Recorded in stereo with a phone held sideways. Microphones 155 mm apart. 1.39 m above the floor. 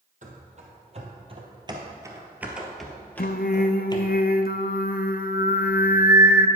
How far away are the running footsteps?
About 2.5 m.